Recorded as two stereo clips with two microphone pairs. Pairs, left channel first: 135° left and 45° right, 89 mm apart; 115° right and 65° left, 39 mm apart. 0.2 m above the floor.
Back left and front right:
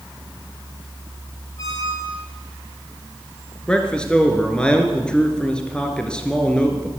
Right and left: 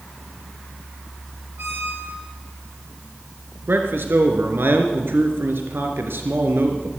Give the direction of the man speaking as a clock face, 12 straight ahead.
10 o'clock.